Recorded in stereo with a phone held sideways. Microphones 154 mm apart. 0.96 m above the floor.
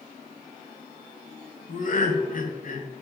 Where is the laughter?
60° left (ahead or behind), 0.6 m.